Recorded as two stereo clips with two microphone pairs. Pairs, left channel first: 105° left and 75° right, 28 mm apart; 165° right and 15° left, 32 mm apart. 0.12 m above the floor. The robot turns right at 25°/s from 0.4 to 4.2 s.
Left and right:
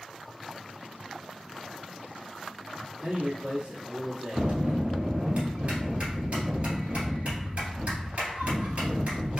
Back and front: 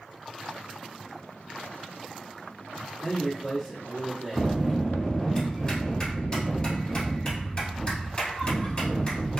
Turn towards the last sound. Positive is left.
turn(degrees=-105)